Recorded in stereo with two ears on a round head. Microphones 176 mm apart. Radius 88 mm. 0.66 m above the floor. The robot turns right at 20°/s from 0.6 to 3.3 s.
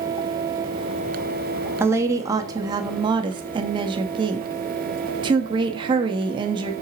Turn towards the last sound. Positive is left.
turn(degrees=-25)  # may be behind; listen again after turning